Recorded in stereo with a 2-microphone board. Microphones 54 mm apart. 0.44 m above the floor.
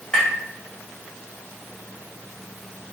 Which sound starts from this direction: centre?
Tapping, at 0.1 s.